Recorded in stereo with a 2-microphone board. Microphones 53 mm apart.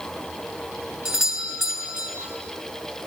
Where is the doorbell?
20° right (ahead or behind), 4.5 m.